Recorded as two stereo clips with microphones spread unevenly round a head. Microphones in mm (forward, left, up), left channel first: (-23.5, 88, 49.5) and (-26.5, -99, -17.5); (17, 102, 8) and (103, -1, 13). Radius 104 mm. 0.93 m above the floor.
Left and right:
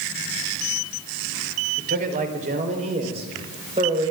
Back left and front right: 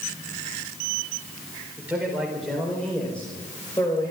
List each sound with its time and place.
1.8 s a man speaking: 130° right, 3.5 m; by 4.1 s 155° right, 4.5 m